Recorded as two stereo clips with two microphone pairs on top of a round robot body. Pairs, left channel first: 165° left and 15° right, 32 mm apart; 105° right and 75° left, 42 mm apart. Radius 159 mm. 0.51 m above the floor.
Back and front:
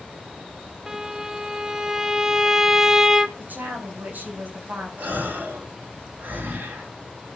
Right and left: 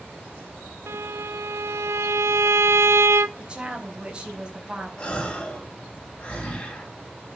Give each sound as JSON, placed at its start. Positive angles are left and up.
{"t": 0.9, "sound": "a violin", "azimuth_deg": 60, "distance_m": 0.6}
{"t": 3.4, "sound": "a woman speaking", "azimuth_deg": 10, "distance_m": 4.5}
{"t": 5.0, "sound": "a gasp", "azimuth_deg": -40, "distance_m": 4.0}